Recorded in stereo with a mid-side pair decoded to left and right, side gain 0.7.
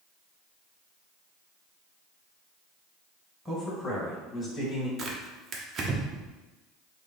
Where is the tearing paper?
35° right, 0.8 m.